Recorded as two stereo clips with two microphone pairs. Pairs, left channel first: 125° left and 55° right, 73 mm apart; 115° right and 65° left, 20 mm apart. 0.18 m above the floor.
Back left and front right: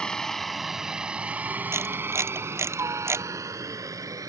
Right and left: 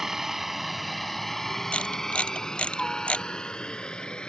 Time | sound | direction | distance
0.0 | a helicopter | 70° left | ?
1.7 | a camera shutter | 105° right | ?